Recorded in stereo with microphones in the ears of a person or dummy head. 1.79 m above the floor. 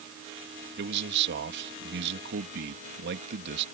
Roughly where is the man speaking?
Right.